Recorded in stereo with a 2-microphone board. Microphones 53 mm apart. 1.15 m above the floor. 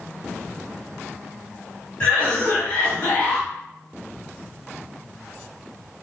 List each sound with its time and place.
2.0 s a cough: 20° left (ahead or behind), 1.4 m